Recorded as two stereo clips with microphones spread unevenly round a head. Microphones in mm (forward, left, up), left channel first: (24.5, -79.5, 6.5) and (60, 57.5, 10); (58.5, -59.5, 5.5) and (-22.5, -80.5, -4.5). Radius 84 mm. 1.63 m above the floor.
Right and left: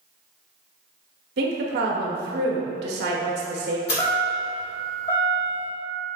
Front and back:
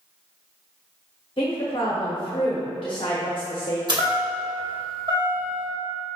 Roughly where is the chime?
Behind right.